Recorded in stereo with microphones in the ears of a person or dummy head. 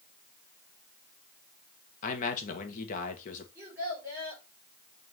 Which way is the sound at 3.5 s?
10° right (ahead or behind).